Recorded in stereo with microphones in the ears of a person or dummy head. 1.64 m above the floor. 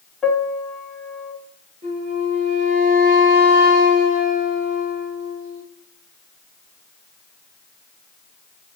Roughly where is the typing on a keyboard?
I don't hear typing on a keyboard.